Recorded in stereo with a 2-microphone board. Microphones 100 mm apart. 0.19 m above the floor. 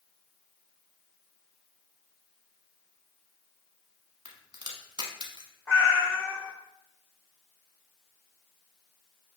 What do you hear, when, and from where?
4.2 s a crack: 45° right (ahead or behind), 0.9 m
5.7 s a cat meowing: 25° left (ahead or behind), 1.1 m